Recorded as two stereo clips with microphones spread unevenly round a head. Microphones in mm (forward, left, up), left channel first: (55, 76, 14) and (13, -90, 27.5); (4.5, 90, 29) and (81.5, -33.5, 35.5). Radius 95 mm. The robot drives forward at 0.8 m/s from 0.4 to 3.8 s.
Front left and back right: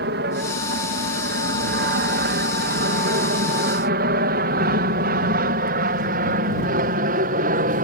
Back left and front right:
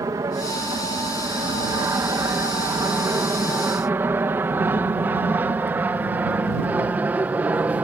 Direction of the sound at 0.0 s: 130° right.